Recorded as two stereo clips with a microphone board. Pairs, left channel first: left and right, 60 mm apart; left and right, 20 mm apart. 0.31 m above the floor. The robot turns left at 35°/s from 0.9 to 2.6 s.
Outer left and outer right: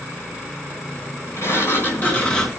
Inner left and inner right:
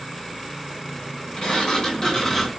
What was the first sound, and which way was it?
A sliding door, 55° left.